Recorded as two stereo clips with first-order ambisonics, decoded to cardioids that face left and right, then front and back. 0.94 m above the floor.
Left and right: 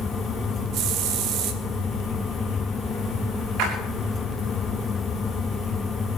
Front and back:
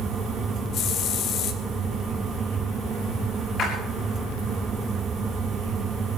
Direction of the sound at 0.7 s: 50° right.